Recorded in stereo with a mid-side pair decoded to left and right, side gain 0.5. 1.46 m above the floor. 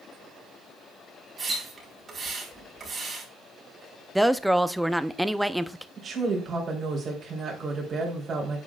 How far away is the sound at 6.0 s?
About 3.5 m.